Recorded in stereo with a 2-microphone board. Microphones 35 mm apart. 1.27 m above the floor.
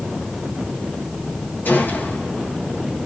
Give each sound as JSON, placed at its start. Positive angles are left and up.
{"t": 1.6, "sound": "a gunshot", "side_deg": 75, "distance_m": 3.5}